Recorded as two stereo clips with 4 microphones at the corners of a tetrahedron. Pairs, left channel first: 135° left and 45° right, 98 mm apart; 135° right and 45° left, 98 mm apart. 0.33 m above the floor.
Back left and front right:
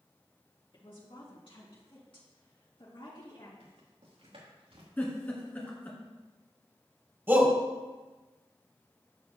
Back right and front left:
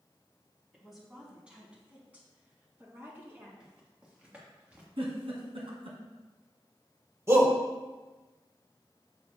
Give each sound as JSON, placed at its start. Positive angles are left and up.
{"t": 0.7, "sound": "a woman speaking", "azimuth_deg": 135, "distance_m": 2.5}
{"t": 3.6, "sound": "footsteps", "azimuth_deg": -35, "distance_m": 3.0}
{"t": 5.0, "sound": "a giggle", "azimuth_deg": 65, "distance_m": 1.7}
{"t": 7.3, "sound": "a shout", "azimuth_deg": 5, "distance_m": 1.4}